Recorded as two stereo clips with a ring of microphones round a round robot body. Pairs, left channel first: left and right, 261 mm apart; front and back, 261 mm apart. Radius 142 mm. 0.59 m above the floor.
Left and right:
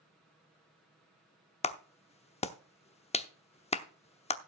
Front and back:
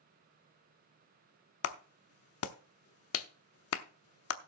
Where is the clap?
25° left, 0.9 m.